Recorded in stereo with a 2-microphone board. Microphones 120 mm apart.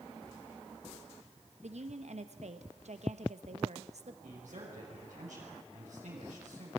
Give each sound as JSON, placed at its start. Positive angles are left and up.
{"t": 1.6, "sound": "a woman speaking", "side_deg": -65, "distance_m": 1.4}
{"t": 4.2, "sound": "a man speaking", "side_deg": -80, "distance_m": 5.0}